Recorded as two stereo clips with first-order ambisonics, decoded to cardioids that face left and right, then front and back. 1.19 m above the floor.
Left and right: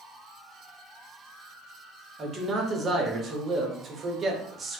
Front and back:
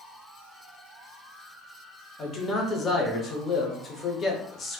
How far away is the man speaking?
About 0.6 m.